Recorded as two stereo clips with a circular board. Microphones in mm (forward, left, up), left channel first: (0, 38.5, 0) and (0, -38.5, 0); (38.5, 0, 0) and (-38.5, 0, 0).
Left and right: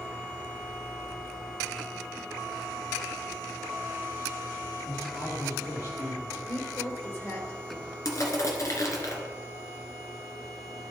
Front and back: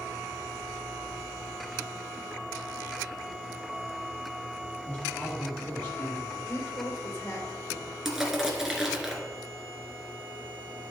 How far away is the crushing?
About 2.0 m.